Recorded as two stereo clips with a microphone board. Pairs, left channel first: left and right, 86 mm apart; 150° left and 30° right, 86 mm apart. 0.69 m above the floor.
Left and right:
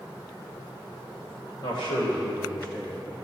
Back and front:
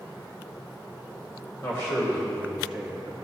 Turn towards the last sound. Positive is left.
turn(degrees=35)